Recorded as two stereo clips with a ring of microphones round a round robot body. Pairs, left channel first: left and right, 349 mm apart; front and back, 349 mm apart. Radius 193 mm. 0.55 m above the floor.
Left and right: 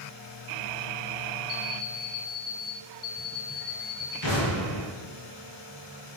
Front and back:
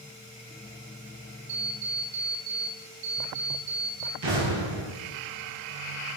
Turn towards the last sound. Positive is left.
turn(degrees=120)